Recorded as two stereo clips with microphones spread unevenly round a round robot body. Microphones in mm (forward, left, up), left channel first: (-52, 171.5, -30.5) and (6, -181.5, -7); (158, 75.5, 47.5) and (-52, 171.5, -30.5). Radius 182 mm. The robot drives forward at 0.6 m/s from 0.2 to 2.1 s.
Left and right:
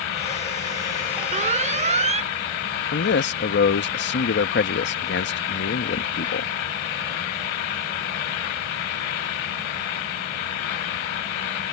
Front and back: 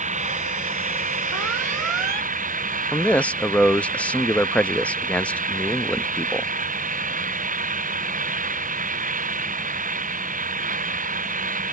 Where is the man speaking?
90° left.